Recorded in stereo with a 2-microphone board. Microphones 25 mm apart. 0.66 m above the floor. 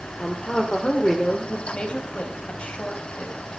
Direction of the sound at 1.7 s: 50° left (ahead or behind).